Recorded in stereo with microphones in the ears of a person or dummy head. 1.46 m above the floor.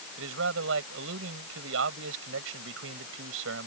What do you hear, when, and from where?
0.2 s a man speaking: 70° right (ahead or behind)